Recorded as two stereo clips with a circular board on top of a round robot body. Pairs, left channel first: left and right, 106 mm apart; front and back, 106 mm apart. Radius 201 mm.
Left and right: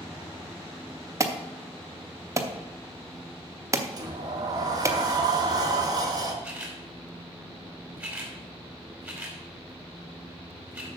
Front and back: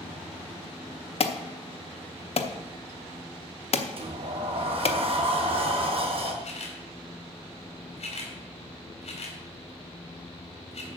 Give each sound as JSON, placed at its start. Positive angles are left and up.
{"t": 1.2, "sound": "an alarm", "azimuth_deg": -30, "distance_m": 1.0}
{"t": 4.0, "sound": "a sliding door", "azimuth_deg": -145, "distance_m": 1.5}
{"t": 6.4, "sound": "a camera shutter", "azimuth_deg": -10, "distance_m": 3.0}